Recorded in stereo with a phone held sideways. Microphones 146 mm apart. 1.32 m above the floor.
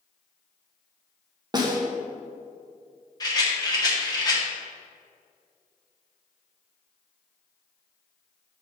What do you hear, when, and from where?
1.5 s a snare drum: 30° right (ahead or behind), 1.1 m
3.2 s a rattle: 25° left (ahead or behind), 1.0 m